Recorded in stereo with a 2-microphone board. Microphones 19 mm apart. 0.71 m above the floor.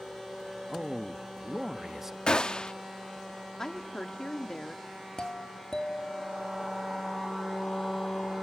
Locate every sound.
0.7 s a man speaking: 10° right (ahead or behind), 1.1 m
2.3 s a gunshot: 45° left (ahead or behind), 1.1 m
3.6 s a woman speaking: 35° left (ahead or behind), 1.6 m
5.2 s a doorbell: 40° left (ahead or behind), 1.8 m